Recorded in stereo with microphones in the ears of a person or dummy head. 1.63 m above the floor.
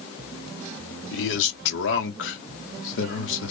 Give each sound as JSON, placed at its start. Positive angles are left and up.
{"t": 1.1, "sound": "a man speaking", "side_deg": 70, "distance_m": 1.2}